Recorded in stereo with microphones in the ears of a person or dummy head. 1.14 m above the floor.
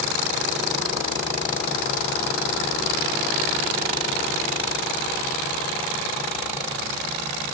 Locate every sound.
Only background noise.